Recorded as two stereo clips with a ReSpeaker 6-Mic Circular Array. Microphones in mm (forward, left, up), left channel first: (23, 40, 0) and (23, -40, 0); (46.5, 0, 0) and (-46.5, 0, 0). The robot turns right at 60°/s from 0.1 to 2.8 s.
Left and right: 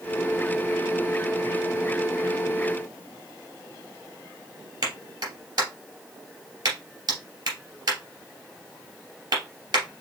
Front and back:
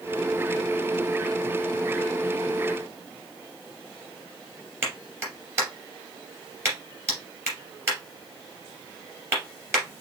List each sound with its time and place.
4.8 s a clap: 120° right, 2.5 m